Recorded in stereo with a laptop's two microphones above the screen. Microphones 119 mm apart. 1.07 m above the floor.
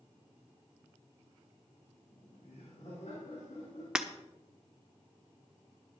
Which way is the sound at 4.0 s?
5° right (ahead or behind).